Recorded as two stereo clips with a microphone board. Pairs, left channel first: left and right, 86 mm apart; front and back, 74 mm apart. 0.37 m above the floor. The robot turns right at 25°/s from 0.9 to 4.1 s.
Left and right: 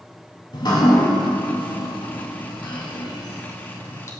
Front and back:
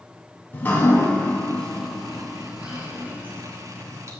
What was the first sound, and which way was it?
Dripping, 60° left.